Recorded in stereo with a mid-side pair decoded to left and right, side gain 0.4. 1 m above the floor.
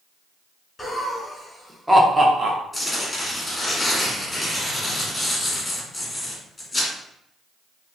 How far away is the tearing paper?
About 1.4 m.